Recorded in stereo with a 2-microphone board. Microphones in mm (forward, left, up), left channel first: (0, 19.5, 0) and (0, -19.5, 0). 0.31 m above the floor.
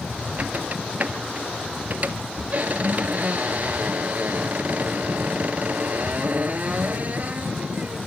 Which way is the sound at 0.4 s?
40° right (ahead or behind).